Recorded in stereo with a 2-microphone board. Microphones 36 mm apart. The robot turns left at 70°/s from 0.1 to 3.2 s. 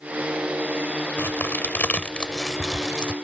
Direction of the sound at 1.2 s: 80° left.